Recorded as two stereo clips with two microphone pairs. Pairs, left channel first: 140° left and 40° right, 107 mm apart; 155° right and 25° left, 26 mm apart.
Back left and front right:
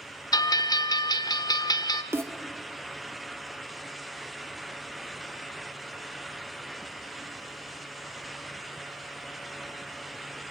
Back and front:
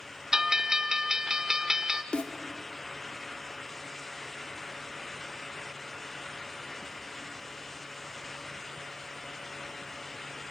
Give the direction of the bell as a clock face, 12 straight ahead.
9 o'clock.